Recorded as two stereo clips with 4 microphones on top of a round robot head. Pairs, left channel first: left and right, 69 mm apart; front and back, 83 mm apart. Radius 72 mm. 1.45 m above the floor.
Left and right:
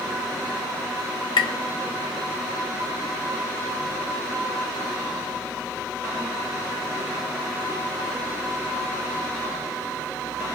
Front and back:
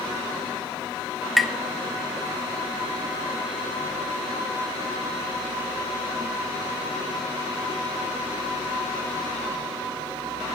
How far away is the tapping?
About 1.2 m.